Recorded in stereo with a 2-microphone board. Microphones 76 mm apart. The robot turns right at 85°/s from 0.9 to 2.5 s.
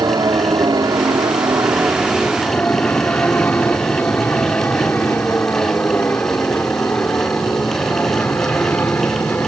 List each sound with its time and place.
0.0 s an aircraft: 55° right (ahead or behind); by 9.5 s 25° left (ahead or behind)